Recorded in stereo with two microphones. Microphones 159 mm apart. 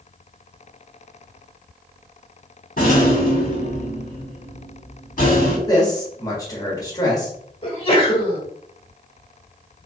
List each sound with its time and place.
2.8 s a rattle: 60° left (ahead or behind), 1.7 m
5.7 s a man speaking: 25° left (ahead or behind), 1.4 m
7.6 s a sneeze: 35° left (ahead or behind), 1.4 m